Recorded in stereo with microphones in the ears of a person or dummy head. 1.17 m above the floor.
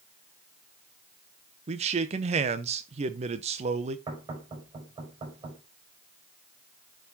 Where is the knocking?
30° right (ahead or behind), 5.5 m.